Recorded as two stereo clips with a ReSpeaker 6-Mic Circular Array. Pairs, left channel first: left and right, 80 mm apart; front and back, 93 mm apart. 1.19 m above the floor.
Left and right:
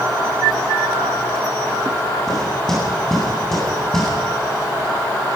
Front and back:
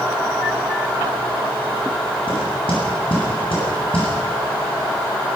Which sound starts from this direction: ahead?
Knocking, at 2.3 s.